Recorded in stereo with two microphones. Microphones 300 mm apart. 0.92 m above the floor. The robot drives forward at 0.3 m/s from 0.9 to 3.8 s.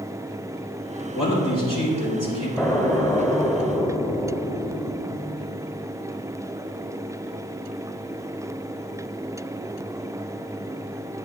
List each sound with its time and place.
1.1 s a man speaking: 80° left, 3 m; by 2.5 s 85° left, 3 m
2.6 s an explosion: 10° left (ahead or behind), 1.0 m